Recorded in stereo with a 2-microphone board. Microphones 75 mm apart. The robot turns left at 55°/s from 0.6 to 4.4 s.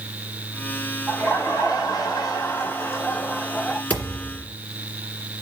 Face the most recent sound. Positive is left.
turn(degrees=-5)  # may be behind; listen again after turning